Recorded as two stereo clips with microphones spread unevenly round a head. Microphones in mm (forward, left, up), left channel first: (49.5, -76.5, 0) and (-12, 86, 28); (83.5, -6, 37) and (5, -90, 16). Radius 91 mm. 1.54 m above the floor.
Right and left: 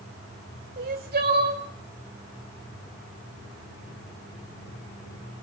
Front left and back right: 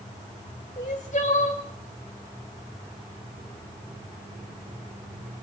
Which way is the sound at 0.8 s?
85° left.